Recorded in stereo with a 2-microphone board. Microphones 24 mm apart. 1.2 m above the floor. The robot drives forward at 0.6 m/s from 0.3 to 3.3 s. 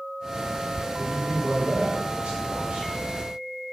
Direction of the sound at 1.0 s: 75° right (ahead or behind).